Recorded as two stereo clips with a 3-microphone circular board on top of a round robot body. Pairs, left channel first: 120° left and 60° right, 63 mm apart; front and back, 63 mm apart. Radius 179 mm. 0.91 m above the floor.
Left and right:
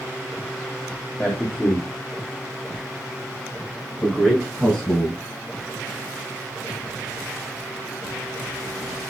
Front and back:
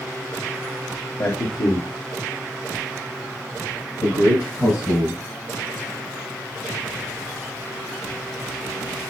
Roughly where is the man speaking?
Ahead left.